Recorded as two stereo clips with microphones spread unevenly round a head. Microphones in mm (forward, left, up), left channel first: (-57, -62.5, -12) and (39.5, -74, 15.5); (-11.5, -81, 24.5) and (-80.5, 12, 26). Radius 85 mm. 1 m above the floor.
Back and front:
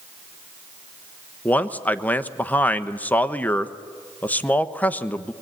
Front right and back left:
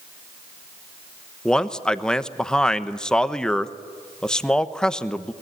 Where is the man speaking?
135° right, 1.1 m.